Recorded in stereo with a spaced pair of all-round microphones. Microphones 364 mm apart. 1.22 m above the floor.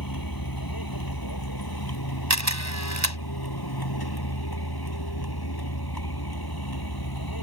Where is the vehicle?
70° left (ahead or behind); by 7.4 s 75° left (ahead or behind).